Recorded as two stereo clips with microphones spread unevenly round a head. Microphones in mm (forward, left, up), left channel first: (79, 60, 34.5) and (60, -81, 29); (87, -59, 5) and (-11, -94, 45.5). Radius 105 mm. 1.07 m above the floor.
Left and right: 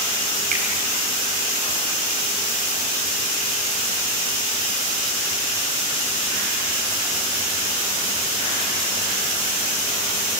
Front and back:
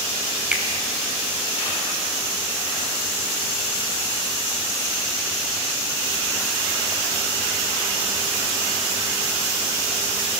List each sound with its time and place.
0.5 s a finger snap: 85° right, 5.5 m